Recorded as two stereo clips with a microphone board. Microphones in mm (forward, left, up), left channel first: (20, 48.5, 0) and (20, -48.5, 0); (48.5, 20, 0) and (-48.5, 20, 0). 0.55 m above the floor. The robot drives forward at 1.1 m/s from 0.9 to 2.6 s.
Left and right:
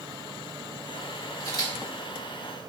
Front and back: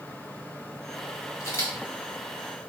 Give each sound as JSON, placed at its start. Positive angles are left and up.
{"t": 1.4, "sound": "a camera shutter", "azimuth_deg": 45, "distance_m": 2.0}